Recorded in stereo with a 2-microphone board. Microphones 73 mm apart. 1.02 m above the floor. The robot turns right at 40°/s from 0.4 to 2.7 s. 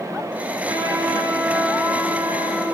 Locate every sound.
0.7 s a trumpet: 90° right, 2 m; by 2.6 s 10° right, 2 m